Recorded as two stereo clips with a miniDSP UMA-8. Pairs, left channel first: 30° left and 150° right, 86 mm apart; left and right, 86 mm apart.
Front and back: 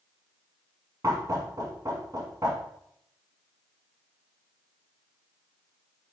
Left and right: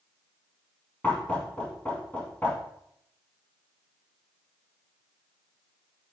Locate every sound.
1.0 s knocking: 165° left, 3.5 m